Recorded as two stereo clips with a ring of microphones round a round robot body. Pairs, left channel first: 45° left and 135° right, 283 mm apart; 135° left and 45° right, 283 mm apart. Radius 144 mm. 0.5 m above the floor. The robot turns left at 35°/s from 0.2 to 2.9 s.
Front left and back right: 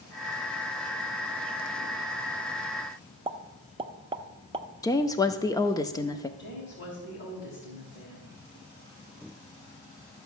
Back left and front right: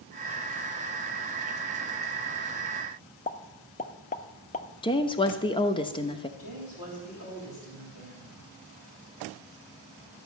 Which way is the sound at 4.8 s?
100° left.